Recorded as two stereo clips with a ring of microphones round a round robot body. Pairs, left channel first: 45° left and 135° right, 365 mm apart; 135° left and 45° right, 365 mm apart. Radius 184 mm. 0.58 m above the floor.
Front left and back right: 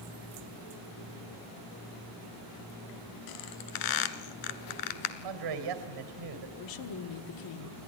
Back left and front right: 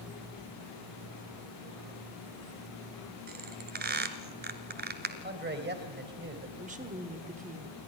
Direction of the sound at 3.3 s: 20° left.